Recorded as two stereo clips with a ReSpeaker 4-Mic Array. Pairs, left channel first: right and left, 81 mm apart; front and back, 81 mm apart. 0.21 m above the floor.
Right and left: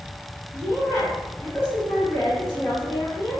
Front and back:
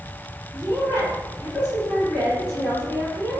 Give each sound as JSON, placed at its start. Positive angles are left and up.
{"t": 0.5, "sound": "a woman speaking", "azimuth_deg": -30, "distance_m": 1.7}